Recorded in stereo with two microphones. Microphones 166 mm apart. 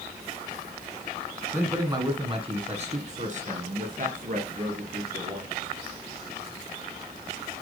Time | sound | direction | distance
1.5 | a man speaking | 15° right (ahead or behind) | 1.3 m